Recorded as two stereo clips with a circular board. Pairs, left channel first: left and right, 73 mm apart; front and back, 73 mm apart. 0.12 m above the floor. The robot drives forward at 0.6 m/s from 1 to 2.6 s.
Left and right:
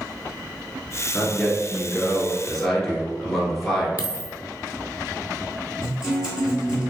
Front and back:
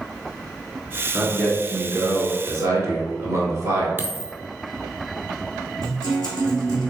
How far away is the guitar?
About 2.0 m.